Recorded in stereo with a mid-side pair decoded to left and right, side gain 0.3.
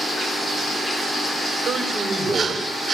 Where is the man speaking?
70° right, 7 m.